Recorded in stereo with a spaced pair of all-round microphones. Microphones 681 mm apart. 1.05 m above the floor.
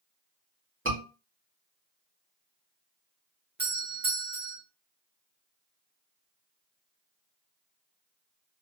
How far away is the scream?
About 2 m.